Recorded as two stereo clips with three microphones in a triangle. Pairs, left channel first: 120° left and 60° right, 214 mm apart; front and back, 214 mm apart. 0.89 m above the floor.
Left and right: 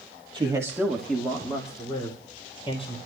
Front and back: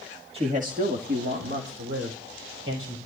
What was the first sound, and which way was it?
A man speaking, 125° right.